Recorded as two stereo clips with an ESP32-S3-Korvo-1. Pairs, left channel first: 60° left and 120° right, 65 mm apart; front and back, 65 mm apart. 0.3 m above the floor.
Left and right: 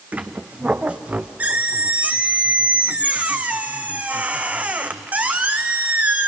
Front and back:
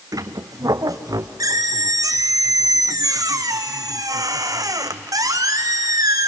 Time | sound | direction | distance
0.1 | a squeak | 175° left | 0.9 m